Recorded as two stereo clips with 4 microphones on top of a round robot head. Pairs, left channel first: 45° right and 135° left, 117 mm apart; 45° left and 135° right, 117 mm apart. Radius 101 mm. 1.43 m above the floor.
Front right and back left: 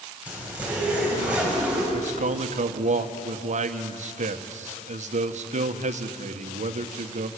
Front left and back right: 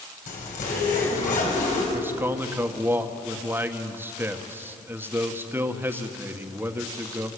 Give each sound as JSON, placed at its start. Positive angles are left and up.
{"t": 0.3, "sound": "a zipper", "azimuth_deg": 55, "distance_m": 6.5}
{"t": 1.9, "sound": "a man speaking", "azimuth_deg": 150, "distance_m": 1.7}